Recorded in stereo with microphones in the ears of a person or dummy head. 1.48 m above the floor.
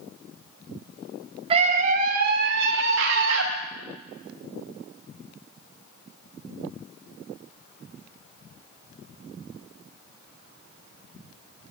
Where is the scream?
30° right (ahead or behind), 1.3 m; by 3.5 s 80° right, 2 m.